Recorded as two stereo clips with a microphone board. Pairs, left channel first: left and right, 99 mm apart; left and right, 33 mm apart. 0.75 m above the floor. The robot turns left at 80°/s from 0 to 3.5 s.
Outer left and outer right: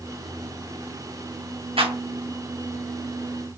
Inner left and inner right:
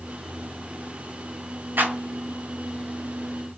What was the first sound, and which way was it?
A clap, 75° right (ahead or behind).